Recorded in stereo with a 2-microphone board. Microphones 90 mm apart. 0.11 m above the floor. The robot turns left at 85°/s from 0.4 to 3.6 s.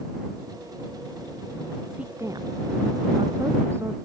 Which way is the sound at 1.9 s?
5° right (ahead or behind).